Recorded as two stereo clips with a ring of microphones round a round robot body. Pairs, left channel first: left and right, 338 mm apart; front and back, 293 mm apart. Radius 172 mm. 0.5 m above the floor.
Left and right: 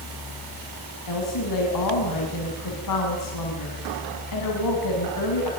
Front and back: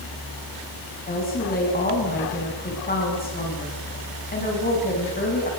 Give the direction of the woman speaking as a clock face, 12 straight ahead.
10 o'clock.